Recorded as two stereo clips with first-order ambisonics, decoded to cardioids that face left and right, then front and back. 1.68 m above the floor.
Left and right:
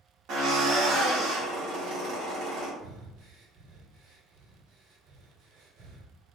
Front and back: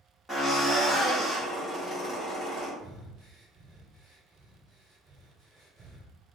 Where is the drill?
85° right, 1.5 m.